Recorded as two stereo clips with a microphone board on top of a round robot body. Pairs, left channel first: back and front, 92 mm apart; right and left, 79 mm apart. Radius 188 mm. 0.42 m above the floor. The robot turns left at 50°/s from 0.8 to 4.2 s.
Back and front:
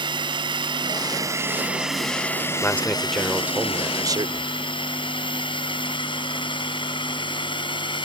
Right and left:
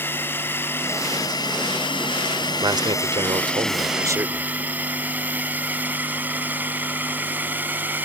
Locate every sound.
0.0 s a drone: 30° right; by 8.1 s 155° left
2.6 s a man speaking: 115° left; by 4.5 s 40° left